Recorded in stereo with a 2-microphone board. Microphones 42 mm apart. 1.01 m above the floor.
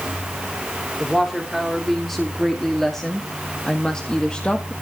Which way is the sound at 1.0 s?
Centre (ahead or behind).